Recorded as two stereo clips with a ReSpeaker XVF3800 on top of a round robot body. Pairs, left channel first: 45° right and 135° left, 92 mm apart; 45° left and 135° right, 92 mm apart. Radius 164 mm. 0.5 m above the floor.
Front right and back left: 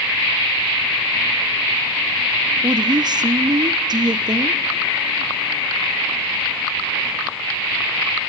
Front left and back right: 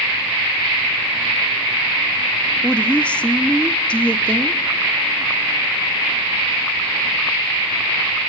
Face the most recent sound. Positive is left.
turn(degrees=120)